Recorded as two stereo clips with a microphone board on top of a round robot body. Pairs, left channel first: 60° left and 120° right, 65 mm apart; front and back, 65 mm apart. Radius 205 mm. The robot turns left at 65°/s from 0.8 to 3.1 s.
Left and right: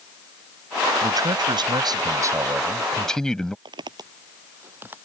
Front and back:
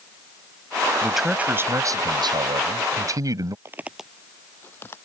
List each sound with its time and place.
1.0 s a man speaking: 85° right; by 3.5 s 140° left
3.6 s footsteps: 125° right; by 5.0 s 55° right